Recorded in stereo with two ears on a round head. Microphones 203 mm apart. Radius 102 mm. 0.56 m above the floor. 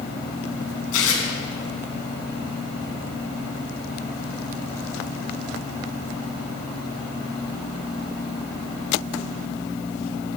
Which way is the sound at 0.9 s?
65° left (ahead or behind).